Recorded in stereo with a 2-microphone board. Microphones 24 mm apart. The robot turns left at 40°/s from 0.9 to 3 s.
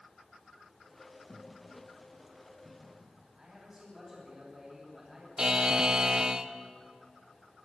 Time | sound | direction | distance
1.3 | footsteps | 35° left (ahead or behind) | 7.5 m
3.4 | a man speaking | 20° right (ahead or behind) | 10 m
5.4 | a buzzer | 25° right (ahead or behind) | 1.1 m